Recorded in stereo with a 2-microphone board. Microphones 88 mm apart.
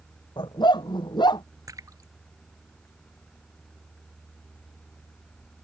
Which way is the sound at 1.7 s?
40° right (ahead or behind).